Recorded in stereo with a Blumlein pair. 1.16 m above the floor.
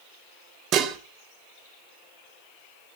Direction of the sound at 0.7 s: 35° right.